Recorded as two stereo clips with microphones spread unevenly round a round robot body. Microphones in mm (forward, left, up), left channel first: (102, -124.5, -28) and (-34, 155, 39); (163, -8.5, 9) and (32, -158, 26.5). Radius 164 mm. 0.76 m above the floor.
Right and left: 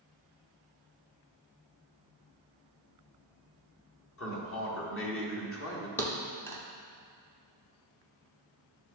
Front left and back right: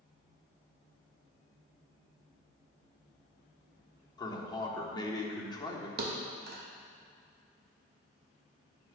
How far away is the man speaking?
About 1.5 m.